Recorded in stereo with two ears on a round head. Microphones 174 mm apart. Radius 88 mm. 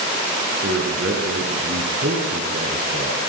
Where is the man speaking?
55° right (ahead or behind), 6.5 m.